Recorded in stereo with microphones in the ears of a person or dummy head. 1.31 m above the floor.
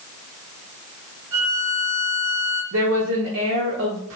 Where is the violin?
55° right (ahead or behind), 2.5 m.